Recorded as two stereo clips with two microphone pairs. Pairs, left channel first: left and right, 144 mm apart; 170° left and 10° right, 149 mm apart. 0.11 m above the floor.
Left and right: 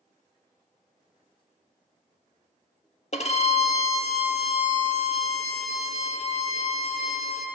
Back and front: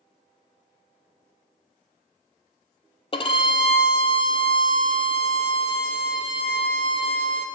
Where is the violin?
125° left, 0.6 m.